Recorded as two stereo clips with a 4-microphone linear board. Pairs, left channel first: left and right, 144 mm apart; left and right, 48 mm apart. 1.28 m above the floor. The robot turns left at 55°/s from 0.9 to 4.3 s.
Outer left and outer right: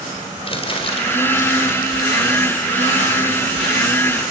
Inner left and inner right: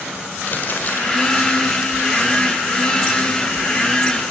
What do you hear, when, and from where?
0.5 s crumpling: 40° left (ahead or behind), 4.5 m; by 2.6 s 50° left (ahead or behind), 4.5 m